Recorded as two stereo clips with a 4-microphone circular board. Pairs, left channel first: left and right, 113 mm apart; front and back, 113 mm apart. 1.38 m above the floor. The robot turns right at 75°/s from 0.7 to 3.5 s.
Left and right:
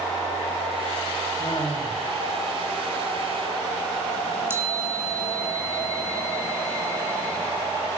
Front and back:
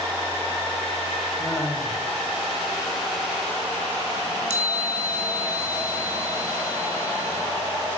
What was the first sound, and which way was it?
Laughter, 75° left.